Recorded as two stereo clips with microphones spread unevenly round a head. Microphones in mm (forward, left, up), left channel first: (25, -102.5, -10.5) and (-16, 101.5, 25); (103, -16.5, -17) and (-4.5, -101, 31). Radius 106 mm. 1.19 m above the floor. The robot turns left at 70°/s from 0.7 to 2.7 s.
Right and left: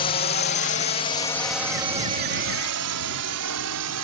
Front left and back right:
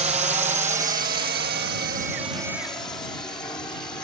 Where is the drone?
105° right; by 4.0 s 115° left.